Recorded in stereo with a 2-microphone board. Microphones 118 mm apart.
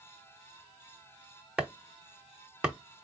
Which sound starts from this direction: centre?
Chopping, at 1.6 s.